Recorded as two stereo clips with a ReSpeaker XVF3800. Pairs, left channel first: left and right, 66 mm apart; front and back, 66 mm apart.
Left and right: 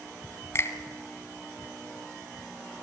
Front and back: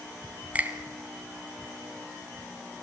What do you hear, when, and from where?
0.6 s a finger snap: 120° left, 1.7 m